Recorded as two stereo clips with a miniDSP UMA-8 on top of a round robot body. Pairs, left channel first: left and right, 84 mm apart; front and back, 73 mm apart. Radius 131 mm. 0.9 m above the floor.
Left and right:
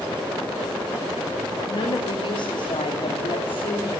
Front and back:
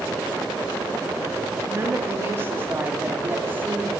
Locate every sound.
1.7 s a woman speaking: 125° left, 1.9 m; by 4.0 s 115° left, 3.5 m